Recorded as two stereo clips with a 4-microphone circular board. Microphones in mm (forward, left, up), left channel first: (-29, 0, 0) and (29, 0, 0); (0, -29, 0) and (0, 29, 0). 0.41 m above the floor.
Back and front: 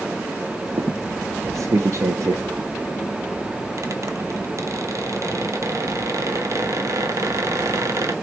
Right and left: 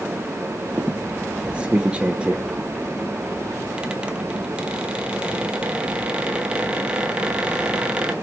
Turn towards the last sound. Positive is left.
turn(degrees=20)